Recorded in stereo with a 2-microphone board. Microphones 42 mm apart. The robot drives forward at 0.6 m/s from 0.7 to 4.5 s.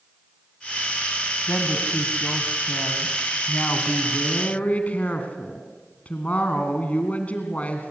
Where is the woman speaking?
50° left (ahead or behind), 2 m; by 7.9 s 35° left (ahead or behind), 2.5 m.